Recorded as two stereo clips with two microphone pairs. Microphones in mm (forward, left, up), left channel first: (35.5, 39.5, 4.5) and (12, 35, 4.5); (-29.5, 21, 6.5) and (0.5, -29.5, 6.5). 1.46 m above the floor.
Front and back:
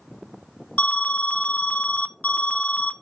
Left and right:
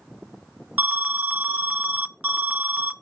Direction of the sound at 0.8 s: Straight ahead.